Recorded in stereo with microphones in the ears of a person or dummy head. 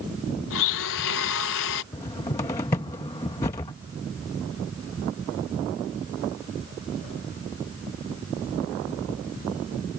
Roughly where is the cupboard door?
Centre.